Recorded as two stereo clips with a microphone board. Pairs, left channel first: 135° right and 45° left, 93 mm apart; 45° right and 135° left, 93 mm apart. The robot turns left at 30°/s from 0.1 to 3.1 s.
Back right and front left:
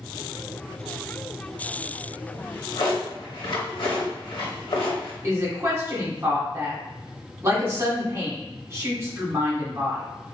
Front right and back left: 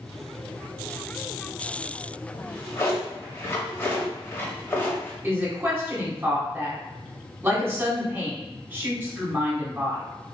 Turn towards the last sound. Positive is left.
turn(degrees=85)